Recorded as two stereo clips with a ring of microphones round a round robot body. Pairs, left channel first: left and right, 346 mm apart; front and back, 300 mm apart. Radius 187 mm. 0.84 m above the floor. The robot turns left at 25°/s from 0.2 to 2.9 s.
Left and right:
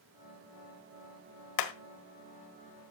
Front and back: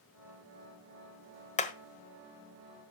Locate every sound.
1.6 s hammering: 65° left, 1.5 m; by 1.7 s 60° left, 1.5 m